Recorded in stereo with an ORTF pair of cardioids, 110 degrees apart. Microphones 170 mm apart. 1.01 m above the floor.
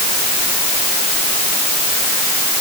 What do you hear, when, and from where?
Only background noise.